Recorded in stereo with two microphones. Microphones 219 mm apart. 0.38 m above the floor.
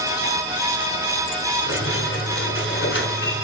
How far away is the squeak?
About 1.8 m.